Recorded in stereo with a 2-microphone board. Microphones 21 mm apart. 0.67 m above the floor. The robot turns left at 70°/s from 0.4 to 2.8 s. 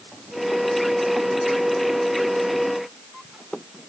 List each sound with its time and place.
Only background noise.